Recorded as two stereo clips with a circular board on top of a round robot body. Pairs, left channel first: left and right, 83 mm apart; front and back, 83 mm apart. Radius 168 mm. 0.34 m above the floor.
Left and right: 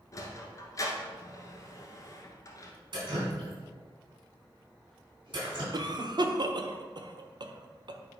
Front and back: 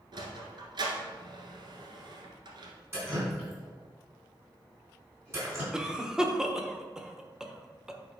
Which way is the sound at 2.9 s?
120° right.